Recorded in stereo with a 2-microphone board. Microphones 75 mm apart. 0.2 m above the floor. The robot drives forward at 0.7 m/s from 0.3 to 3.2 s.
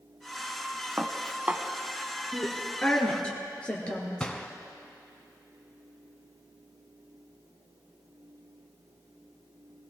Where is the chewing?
No chewing in this recording.